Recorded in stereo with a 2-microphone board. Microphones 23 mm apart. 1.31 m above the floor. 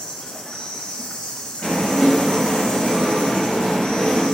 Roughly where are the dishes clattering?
Left.